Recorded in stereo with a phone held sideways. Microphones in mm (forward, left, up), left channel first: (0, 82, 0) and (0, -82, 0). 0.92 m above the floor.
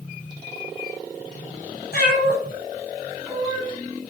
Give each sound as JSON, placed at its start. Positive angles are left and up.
{"t": 1.9, "sound": "a cat meowing", "side_deg": 80, "distance_m": 1.4}